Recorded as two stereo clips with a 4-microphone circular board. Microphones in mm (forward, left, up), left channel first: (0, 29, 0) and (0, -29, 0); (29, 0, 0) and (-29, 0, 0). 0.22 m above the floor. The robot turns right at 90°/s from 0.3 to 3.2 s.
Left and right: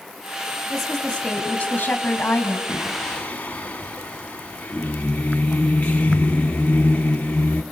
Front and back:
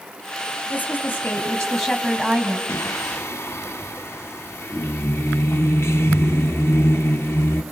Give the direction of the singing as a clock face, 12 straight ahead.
1 o'clock.